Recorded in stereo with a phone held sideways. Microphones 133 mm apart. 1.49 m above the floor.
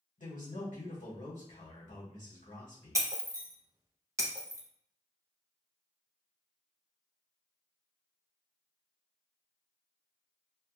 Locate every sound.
0.2 s a man speaking: 80° left, 1.7 m
3.0 s breaking glass: 25° right (ahead or behind), 0.6 m